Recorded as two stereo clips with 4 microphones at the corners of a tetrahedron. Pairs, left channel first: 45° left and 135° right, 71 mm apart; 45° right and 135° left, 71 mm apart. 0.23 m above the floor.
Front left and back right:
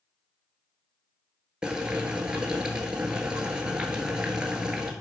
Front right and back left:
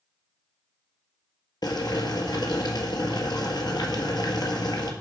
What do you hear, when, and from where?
1.6 s boiling: 55° right, 1.4 m